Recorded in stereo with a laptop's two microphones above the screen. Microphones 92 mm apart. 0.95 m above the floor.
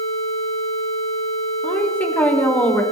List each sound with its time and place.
1.6 s a woman speaking: 15° left (ahead or behind), 4 m